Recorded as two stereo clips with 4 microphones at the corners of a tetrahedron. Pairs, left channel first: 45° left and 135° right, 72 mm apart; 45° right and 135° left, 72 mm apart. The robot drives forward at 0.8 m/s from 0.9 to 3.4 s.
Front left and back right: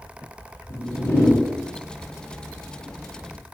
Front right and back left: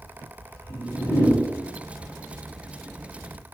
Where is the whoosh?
Straight ahead, 2.5 m.